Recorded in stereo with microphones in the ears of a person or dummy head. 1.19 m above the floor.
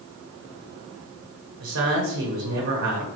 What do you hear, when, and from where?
1.6 s a man speaking: 65° right (ahead or behind), 1.3 m